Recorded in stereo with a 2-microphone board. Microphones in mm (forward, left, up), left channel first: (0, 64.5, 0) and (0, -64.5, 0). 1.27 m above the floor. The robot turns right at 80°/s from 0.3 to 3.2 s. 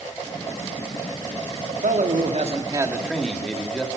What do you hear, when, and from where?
1.7 s a man speaking: 115° right, 2.5 m; by 3.9 s 5° left, 2.5 m